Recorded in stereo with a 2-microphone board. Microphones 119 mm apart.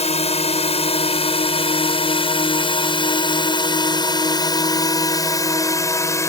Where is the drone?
65° left (ahead or behind); by 6.3 s 25° left (ahead or behind).